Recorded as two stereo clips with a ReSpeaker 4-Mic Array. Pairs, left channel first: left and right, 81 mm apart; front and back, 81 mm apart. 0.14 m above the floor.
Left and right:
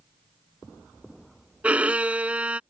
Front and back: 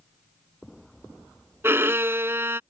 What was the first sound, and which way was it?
A violin, 150° right.